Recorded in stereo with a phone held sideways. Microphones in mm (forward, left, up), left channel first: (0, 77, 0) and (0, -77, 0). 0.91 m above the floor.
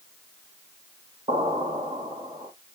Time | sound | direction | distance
1.3 | an explosion | 35° right (ahead or behind) | 1.6 m